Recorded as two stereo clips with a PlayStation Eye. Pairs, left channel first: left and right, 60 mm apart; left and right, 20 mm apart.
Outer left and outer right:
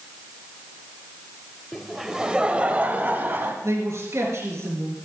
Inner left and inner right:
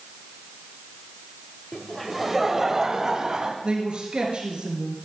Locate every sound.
1.7 s laughter: 5° left (ahead or behind), 0.9 m; by 3.5 s 40° right (ahead or behind), 1.4 m
3.6 s a man speaking: 55° right (ahead or behind), 4.5 m